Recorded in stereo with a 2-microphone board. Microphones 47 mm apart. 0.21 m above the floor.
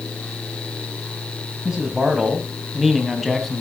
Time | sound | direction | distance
1.6 | a man speaking | 15° right (ahead or behind) | 1.6 m